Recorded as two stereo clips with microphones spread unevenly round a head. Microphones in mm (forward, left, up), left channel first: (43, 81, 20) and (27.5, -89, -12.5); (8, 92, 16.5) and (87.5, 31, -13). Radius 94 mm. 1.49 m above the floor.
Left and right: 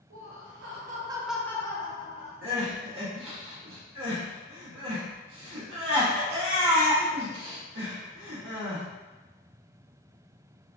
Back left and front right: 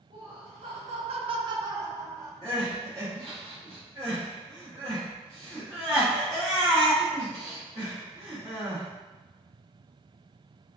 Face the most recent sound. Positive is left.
turn(degrees=-105)